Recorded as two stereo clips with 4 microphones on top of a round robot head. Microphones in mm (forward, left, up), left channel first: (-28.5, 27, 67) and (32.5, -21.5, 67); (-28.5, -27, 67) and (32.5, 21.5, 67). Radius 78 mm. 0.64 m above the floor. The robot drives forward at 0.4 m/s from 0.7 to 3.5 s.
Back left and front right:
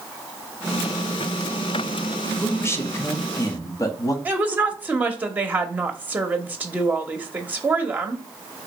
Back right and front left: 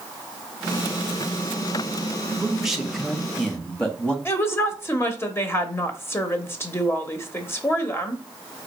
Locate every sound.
2.4 s a man speaking: 110° left, 1.0 m; by 4.2 s 140° left, 1.1 m
4.2 s a woman speaking: 100° right, 0.9 m